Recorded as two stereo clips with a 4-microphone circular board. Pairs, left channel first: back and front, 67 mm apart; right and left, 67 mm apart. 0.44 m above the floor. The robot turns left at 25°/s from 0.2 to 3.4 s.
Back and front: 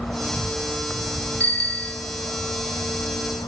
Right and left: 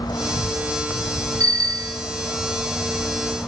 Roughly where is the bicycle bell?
Behind left.